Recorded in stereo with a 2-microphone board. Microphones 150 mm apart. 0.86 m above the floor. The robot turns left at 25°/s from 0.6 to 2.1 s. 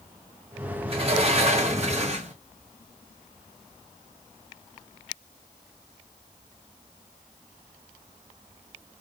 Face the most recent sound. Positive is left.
turn(degrees=-95)